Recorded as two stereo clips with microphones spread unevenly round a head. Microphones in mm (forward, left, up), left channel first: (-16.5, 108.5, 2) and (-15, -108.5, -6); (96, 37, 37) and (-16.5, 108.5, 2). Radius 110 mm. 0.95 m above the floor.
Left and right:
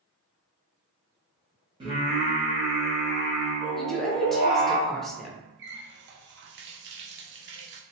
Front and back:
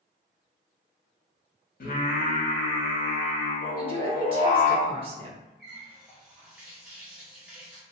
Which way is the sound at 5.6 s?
130° right.